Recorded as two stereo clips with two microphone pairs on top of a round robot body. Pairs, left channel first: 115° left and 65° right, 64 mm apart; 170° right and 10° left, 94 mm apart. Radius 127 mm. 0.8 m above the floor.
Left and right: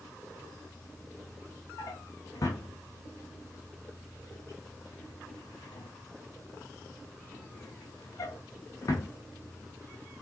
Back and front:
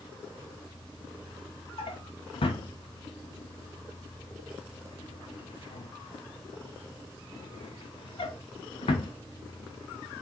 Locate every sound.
1.8 s a drawer: 160° left, 0.6 m